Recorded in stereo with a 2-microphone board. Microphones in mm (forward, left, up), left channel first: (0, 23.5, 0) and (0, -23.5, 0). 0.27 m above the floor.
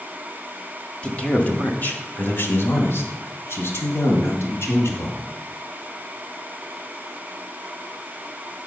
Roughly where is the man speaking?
Centre.